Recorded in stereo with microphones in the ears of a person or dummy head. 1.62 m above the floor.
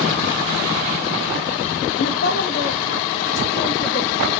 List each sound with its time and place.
2.0 s a woman speaking: 60° left (ahead or behind), 0.9 m; by 4.3 s 70° left (ahead or behind), 2.5 m